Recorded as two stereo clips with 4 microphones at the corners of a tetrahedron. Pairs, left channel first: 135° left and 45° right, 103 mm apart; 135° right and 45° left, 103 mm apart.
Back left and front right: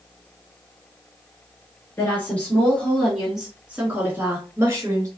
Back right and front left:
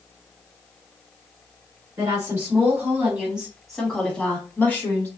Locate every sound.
2.0 s a woman speaking: 80° left, 1.7 m; by 5.1 s 75° right, 1.8 m